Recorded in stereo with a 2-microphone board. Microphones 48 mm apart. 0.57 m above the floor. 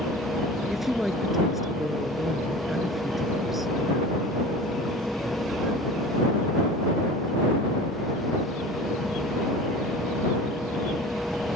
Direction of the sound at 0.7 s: 5° right (ahead or behind).